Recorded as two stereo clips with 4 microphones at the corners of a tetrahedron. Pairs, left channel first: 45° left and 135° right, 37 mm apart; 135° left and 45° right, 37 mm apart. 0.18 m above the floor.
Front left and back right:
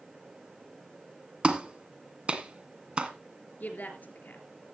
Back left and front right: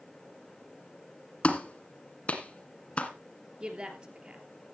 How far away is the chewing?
No chewing in this recording.